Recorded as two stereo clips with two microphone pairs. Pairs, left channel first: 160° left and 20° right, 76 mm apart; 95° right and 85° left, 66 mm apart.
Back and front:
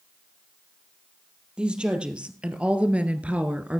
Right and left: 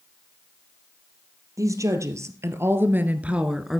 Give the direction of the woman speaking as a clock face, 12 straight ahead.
10 o'clock.